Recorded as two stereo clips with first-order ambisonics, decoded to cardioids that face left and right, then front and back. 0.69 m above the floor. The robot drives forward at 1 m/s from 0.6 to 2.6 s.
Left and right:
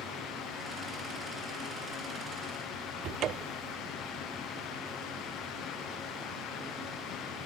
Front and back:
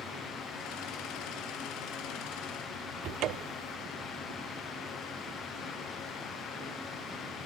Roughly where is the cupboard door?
Behind right.